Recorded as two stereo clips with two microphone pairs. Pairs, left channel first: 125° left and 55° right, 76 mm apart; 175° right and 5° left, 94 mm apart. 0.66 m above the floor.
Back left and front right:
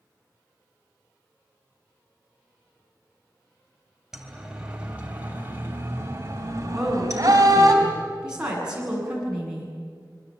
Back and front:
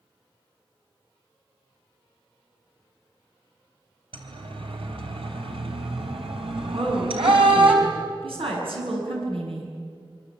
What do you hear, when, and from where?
4.1 s a siren: 30° left, 3.5 m; by 7.7 s 15° right, 4.5 m
6.7 s a woman speaking: 20° left, 8 m